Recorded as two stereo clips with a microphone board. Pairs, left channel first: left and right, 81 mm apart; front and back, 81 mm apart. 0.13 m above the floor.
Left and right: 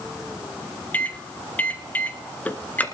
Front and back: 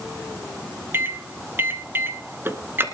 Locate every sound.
0.9 s a microwave: 145° left, 1.4 m